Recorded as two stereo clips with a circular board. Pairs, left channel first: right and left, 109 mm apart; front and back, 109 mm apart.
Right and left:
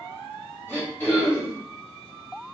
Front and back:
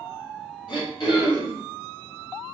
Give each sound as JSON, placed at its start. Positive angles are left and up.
{"t": 0.7, "sound": "throat clearing", "azimuth_deg": -25, "distance_m": 2.0}